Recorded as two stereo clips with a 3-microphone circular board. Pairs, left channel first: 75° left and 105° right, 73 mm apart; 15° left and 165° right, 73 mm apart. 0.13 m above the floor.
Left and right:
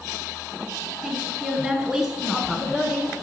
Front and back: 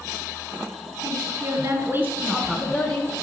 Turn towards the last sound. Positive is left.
turn(degrees=-20)